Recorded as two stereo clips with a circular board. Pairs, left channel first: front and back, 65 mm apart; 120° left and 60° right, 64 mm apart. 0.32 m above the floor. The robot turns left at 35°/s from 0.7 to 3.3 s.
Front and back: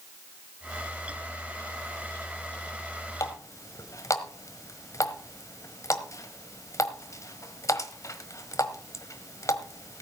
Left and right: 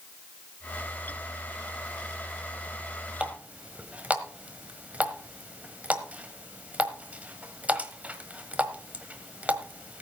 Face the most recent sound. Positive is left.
turn(degrees=5)